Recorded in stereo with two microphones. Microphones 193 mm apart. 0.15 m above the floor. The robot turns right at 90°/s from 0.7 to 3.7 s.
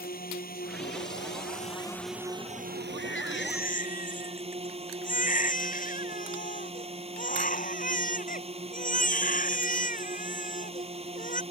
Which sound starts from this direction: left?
A baby crying, at 3.0 s.